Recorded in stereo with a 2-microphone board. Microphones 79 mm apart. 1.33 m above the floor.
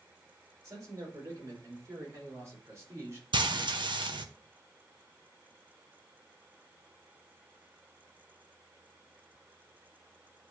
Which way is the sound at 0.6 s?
40° right (ahead or behind).